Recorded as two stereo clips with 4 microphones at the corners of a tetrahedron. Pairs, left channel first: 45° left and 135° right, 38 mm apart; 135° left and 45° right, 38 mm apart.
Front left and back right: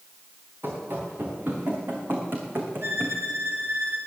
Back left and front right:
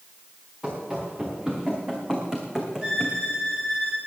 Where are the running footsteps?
110° right, 4.5 m; by 3.2 s 120° right, 2.5 m.